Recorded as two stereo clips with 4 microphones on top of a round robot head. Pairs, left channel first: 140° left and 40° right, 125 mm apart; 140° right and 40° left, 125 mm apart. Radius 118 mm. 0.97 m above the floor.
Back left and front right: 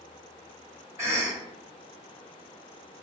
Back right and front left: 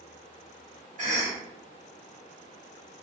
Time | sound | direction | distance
1.0 | a cough | 30° left | 1.3 m